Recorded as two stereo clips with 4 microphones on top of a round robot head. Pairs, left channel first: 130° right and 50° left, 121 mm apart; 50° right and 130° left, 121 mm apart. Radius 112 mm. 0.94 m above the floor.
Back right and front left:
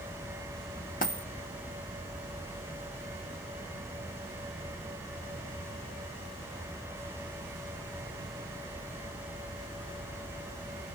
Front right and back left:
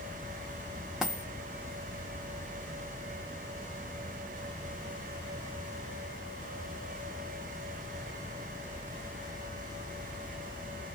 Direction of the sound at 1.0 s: 140° right.